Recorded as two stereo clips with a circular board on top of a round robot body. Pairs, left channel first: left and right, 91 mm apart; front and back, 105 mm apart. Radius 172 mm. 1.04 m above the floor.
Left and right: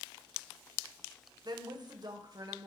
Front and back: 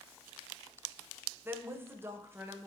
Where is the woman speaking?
115° right, 1.1 m.